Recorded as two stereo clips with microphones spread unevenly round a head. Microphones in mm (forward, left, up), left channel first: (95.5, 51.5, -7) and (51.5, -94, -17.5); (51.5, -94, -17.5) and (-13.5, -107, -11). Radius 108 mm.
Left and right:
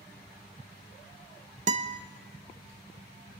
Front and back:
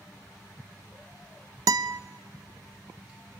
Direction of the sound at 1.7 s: 160° right.